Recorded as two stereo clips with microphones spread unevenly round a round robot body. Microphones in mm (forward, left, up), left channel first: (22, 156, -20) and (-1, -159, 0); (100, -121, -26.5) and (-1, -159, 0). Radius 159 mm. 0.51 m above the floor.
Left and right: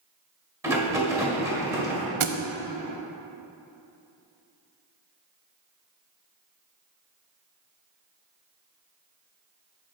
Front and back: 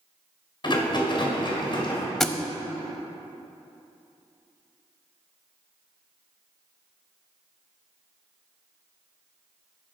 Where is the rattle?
10° right, 1.7 m.